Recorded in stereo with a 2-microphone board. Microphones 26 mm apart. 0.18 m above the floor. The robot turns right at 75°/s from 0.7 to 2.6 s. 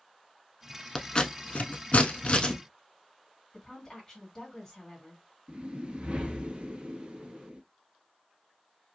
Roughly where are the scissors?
Left.